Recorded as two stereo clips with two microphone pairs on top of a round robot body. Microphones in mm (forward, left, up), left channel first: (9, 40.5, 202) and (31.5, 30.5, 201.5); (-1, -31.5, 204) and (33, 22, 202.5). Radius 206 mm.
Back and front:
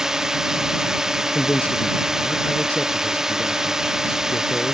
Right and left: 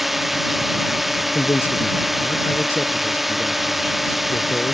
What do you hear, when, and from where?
0.0 s a drone: 20° right
1.4 s a man speaking: 175° right